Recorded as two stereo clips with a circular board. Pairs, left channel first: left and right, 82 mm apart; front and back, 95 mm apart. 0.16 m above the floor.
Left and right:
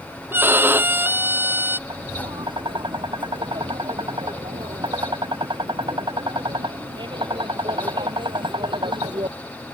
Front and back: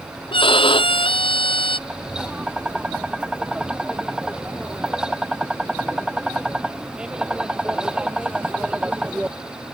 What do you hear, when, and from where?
0.3 s a violin: 25° right
1.9 s tapping: 100° right